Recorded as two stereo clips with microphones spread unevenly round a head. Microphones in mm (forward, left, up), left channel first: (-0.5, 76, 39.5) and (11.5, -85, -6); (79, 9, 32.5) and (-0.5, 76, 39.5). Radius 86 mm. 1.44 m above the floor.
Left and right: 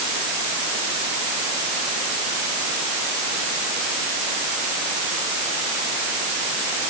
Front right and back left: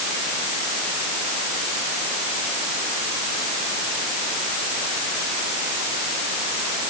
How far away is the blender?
No blender in this recording.